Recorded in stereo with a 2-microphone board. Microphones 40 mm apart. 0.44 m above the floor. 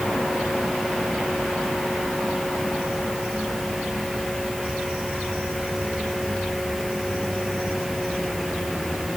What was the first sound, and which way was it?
Only background noise.